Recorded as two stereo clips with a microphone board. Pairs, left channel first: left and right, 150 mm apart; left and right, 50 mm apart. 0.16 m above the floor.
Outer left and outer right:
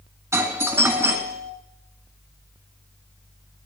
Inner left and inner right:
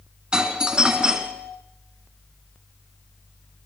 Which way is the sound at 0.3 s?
20° right (ahead or behind).